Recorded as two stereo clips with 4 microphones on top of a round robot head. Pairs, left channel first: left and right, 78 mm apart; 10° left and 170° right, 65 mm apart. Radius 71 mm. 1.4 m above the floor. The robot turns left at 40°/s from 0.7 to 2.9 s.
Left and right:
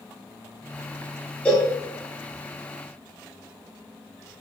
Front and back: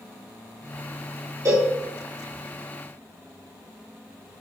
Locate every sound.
1.4 s a cowbell: 165° left, 3.5 m; by 1.7 s 155° left, 3.5 m